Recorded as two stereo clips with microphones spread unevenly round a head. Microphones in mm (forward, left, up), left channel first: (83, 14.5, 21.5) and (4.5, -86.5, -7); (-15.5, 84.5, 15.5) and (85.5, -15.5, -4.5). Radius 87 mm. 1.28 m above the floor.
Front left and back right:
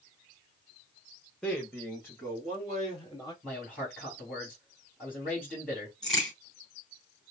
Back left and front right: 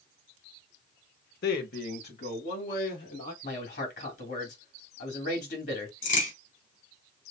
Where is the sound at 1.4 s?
135° left, 0.8 m; by 3.3 s 125° left, 2.5 m.